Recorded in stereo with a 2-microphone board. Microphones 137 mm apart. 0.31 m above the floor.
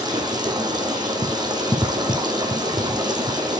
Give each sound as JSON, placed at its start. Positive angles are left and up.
{"t": 0.0, "sound": "running water", "side_deg": -35, "distance_m": 2.0}